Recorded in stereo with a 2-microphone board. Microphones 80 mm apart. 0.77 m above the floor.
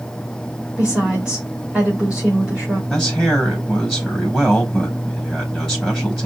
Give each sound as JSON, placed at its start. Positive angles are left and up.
{"t": 0.8, "sound": "a woman speaking", "side_deg": -15, "distance_m": 2.5}
{"t": 2.9, "sound": "a man speaking", "side_deg": -5, "distance_m": 4.0}